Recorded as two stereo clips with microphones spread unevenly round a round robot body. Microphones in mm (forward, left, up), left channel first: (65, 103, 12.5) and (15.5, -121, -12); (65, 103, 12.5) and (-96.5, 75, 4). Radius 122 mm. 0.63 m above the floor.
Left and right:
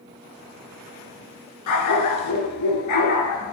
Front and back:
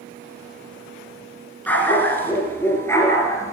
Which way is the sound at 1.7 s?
90° left.